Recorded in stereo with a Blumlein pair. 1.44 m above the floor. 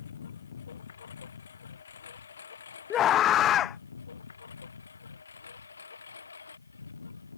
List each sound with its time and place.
0.0 s a lawn mower: 65° left; by 7.4 s 75° left
2.9 s a scream: 30° left